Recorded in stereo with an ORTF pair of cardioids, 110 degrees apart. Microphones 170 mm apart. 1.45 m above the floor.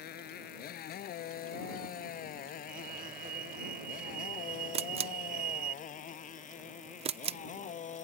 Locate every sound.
0.0 s a motorcycle: 70° left; by 8.1 s 45° left
2.7 s a fire alarm: 55° right
4.7 s a camera shutter: 35° right